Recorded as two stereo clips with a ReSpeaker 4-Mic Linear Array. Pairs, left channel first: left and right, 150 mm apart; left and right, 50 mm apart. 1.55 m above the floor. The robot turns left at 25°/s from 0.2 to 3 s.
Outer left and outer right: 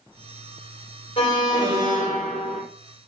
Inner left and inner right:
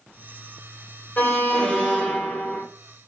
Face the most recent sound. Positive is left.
turn(degrees=-5)